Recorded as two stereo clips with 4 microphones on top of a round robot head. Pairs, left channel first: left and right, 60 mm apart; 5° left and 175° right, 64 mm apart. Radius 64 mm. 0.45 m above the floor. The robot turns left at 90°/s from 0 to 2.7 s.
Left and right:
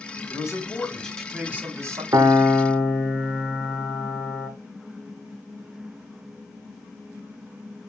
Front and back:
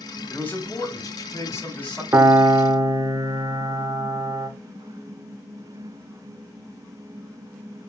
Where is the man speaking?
80° left, 1.8 m; by 2.0 s 75° right, 1.8 m.